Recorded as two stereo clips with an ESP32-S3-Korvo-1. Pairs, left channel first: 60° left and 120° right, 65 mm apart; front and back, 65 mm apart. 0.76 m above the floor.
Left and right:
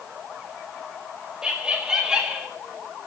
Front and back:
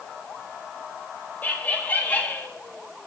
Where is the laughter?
50° right, 1.4 m.